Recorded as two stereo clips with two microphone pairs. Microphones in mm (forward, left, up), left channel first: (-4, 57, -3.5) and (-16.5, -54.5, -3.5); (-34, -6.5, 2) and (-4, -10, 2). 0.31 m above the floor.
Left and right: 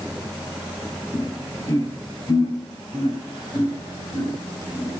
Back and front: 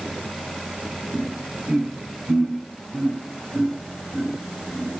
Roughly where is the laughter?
Ahead left.